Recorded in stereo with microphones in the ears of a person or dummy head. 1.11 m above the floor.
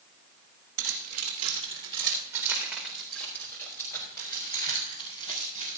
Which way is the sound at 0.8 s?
60° right (ahead or behind).